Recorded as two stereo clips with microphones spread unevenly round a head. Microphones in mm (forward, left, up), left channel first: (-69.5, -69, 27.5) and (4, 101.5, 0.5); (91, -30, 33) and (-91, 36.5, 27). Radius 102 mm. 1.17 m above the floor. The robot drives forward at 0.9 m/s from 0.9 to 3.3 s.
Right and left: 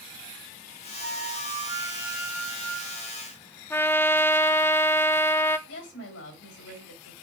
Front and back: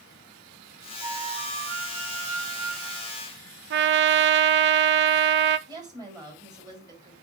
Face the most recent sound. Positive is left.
turn(degrees=-130)